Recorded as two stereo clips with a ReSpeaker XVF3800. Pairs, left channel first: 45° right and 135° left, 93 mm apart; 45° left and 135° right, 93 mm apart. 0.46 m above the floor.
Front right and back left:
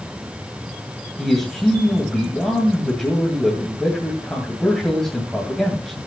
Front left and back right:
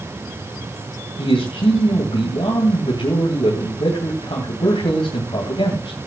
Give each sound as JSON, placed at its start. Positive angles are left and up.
{"t": 1.2, "sound": "a man speaking", "azimuth_deg": 40, "distance_m": 2.5}